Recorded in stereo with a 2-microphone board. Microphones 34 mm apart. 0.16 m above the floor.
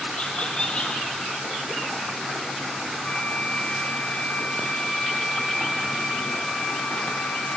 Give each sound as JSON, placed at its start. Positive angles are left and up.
{"t": 0.2, "sound": "laughter", "side_deg": 35, "distance_m": 3.5}
{"t": 3.0, "sound": "a flute", "side_deg": 45, "distance_m": 5.0}